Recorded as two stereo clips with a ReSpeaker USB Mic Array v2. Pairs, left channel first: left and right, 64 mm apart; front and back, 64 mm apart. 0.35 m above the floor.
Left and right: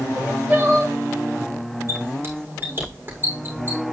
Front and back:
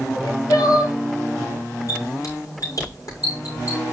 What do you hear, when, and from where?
0.1 s crying: 25° right, 7.5 m
1.9 s a squeak: 30° right, 7.5 m